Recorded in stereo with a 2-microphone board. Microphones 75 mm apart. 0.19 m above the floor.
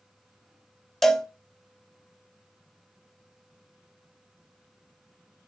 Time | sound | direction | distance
1.0 | a cowbell | 5° left (ahead or behind) | 0.5 m